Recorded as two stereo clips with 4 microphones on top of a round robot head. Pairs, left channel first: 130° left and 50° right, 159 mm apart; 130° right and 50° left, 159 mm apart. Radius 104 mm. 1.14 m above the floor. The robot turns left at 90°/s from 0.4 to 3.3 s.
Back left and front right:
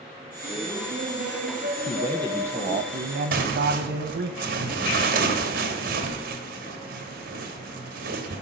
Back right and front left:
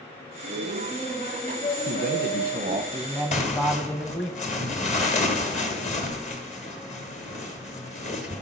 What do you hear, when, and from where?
0.4 s laughter: 45° left, 0.9 m; by 2.9 s 175° right, 0.9 m
1.9 s a man speaking: 80° left, 0.9 m; by 4.3 s 50° right, 0.9 m
3.3 s tearing paper: 85° right, 1.7 m